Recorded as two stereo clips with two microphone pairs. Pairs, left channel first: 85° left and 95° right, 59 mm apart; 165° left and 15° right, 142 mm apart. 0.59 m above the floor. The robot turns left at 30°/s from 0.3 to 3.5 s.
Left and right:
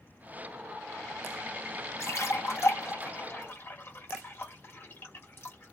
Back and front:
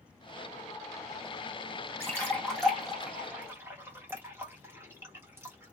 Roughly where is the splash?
Left.